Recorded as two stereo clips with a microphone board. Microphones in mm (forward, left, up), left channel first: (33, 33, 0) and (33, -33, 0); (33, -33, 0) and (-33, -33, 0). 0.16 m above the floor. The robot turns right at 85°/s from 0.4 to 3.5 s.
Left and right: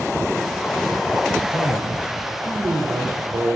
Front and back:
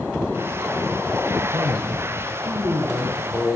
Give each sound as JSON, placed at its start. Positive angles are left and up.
{"t": 1.5, "sound": "a man speaking", "azimuth_deg": 135, "distance_m": 10.0}